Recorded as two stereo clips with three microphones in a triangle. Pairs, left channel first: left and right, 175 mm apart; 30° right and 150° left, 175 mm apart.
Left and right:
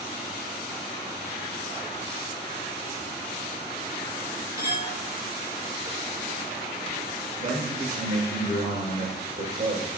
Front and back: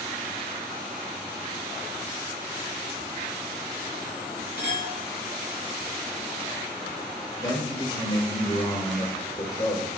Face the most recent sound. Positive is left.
turn(degrees=-80)